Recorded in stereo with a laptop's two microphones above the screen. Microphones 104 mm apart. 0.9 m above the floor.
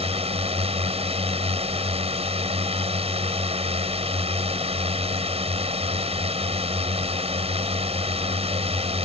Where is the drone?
65° right (ahead or behind).